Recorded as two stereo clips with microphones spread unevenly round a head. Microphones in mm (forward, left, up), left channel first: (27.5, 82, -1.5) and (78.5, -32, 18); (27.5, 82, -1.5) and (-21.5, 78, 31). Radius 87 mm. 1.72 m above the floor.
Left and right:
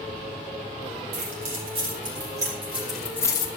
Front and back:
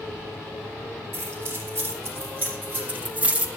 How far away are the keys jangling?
About 3.5 m.